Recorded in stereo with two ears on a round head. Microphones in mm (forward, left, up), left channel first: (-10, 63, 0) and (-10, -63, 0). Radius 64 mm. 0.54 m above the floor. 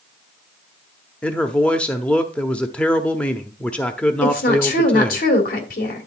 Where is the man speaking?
10° left (ahead or behind), 0.7 m.